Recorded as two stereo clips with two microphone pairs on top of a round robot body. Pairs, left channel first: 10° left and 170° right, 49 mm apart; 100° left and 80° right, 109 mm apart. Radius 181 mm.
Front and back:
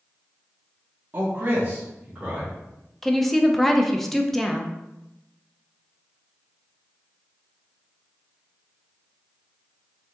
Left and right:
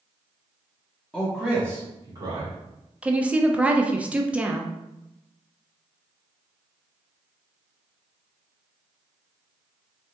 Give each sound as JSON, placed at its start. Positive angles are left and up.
{"t": 1.1, "sound": "a man speaking", "azimuth_deg": -170, "distance_m": 1.2}
{"t": 3.0, "sound": "a woman speaking", "azimuth_deg": -75, "distance_m": 0.7}